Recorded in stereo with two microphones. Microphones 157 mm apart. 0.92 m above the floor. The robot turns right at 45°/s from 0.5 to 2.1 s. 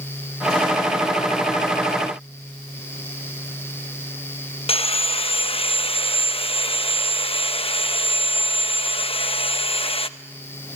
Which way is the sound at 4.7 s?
40° left (ahead or behind).